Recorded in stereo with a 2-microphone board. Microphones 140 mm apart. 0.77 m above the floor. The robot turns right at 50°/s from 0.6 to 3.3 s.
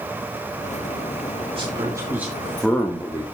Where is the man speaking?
45° right, 1.8 m; by 3.2 s 40° left, 1.8 m.